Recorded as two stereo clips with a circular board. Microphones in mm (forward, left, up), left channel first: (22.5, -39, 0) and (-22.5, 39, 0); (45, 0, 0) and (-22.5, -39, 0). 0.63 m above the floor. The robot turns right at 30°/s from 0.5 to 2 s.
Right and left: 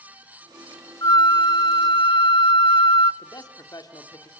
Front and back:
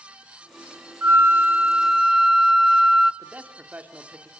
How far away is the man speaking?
About 1.9 m.